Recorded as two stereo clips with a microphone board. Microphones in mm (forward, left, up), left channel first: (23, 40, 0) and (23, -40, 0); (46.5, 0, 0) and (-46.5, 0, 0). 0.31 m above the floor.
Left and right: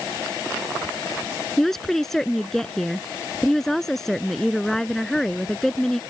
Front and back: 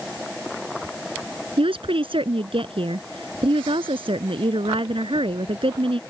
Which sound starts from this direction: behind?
A woman speaking, at 1.6 s.